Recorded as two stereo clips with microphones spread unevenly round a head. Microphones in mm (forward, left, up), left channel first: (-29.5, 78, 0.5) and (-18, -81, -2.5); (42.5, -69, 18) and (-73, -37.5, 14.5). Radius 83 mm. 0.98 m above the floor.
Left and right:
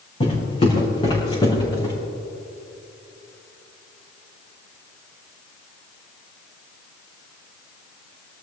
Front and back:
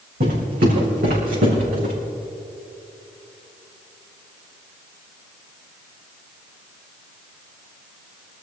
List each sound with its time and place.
0.2 s footsteps: 150° left, 4.5 m; by 1.9 s 160° left, 4.5 m